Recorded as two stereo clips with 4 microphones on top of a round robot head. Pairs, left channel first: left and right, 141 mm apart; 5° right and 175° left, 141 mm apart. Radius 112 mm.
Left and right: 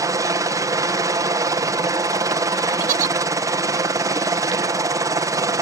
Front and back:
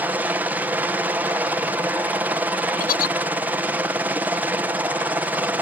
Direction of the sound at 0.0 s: 120° right.